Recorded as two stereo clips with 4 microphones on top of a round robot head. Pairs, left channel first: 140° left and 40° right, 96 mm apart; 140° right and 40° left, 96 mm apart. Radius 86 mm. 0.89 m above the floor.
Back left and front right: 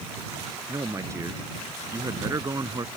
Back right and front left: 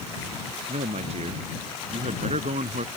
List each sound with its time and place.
0.7 s a man speaking: 20° left